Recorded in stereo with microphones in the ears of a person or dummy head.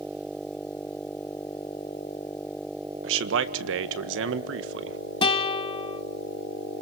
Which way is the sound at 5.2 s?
30° left (ahead or behind).